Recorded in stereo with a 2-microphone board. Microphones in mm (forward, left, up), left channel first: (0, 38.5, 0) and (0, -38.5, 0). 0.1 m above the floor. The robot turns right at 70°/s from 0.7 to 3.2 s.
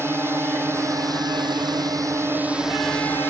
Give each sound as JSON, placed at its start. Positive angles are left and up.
{"t": 0.0, "sound": "a drone", "azimuth_deg": -145}